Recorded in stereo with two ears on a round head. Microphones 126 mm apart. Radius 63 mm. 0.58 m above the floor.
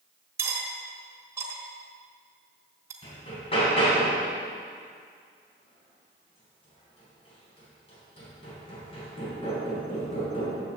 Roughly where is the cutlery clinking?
Centre.